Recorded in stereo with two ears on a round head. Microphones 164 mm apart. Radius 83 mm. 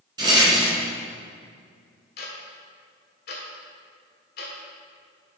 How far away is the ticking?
About 1.5 m.